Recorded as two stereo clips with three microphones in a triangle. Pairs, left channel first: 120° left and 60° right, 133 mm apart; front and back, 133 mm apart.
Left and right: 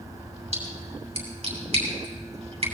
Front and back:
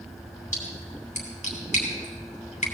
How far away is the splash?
About 3.5 m.